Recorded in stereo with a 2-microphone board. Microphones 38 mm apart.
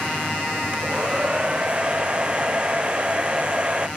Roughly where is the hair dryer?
Right.